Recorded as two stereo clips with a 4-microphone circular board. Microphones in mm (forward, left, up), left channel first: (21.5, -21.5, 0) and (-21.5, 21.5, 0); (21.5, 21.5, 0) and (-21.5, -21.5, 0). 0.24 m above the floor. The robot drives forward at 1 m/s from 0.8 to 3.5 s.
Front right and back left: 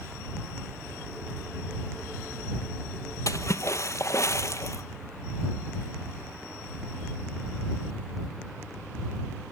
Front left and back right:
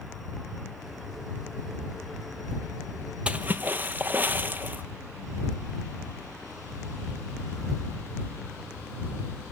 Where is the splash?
65° right, 1.1 m; by 4.8 s 75° right, 1.0 m.